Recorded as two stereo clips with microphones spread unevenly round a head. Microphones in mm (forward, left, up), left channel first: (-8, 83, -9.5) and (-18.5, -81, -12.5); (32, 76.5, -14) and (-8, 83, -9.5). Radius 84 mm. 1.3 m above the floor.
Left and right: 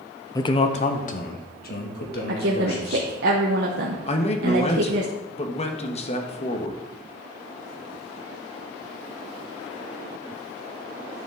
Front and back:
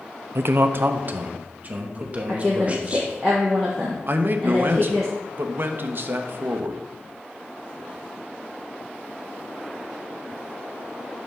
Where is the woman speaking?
105° right, 1.2 m.